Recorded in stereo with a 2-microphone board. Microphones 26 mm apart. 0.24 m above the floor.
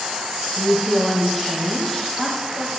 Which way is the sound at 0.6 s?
5° left (ahead or behind).